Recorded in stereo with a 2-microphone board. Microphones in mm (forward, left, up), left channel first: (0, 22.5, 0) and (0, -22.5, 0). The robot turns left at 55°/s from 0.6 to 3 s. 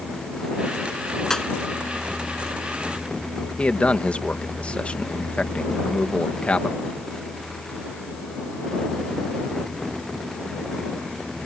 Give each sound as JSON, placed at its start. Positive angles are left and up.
{"t": 1.3, "sound": "a pop", "side_deg": 10}
{"t": 3.6, "sound": "a man speaking", "side_deg": 30}